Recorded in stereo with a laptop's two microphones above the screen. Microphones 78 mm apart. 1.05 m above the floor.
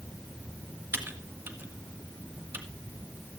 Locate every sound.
0.9 s typing on a keyboard: 25° right (ahead or behind), 2 m